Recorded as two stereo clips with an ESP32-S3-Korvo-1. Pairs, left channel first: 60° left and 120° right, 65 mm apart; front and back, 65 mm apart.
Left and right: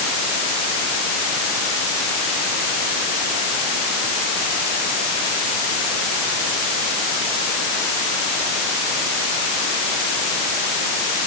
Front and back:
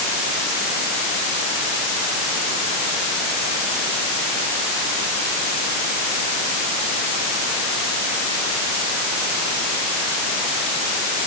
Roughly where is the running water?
No running water in this recording.